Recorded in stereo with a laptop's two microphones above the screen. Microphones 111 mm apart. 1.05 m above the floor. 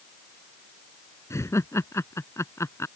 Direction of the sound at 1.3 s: 25° left (ahead or behind).